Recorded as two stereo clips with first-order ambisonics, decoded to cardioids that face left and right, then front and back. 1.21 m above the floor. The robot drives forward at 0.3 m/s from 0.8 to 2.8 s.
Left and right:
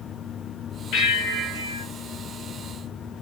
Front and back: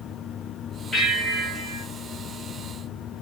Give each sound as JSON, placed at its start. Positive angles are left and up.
{"t": 0.9, "sound": "a bell", "azimuth_deg": 90, "distance_m": 1.0}